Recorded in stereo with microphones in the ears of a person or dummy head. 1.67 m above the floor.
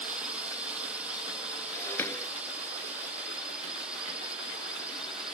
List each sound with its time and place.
0.0 s a drone: 5° right (ahead or behind); by 5.3 s centre (ahead or behind)
1.7 s breaking glass: 20° left (ahead or behind)